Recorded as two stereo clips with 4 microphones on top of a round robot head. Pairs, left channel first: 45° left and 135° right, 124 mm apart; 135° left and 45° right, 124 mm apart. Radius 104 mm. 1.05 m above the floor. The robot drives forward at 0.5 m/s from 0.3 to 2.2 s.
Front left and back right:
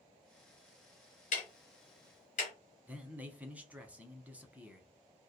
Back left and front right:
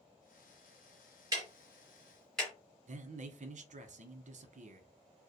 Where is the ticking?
20° left, 0.8 m; by 2.5 s 55° left, 0.5 m.